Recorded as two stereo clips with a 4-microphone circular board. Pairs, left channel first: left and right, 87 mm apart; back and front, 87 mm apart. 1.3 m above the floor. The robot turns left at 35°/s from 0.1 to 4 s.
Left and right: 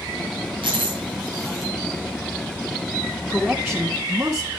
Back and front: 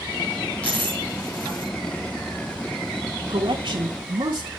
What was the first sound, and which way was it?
A dropped coin, 105° right.